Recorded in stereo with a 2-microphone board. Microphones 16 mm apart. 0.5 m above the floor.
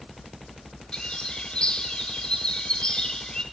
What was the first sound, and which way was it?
A bird, 80° left.